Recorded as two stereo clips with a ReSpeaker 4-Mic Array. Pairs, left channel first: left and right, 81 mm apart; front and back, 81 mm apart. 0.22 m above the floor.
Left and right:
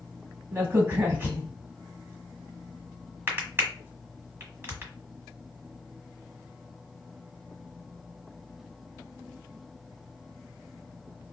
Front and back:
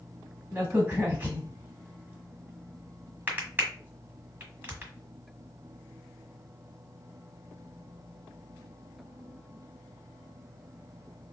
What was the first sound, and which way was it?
A crack, 130° right.